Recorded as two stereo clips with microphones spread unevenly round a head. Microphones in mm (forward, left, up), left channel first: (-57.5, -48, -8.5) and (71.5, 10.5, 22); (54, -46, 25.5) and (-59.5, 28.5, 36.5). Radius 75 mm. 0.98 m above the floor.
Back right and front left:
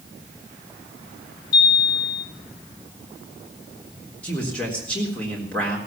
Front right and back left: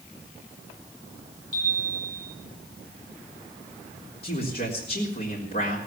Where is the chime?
135° right, 10 m.